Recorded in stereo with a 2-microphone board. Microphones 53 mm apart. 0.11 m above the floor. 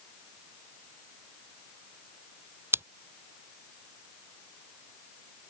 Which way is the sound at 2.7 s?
40° right (ahead or behind).